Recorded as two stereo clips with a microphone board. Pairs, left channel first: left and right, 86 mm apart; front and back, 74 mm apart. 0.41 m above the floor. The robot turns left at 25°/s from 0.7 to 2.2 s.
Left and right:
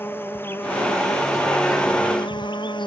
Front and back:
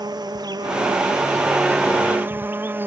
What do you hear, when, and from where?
0.0 s an insect: 155° left; by 2.9 s 115° left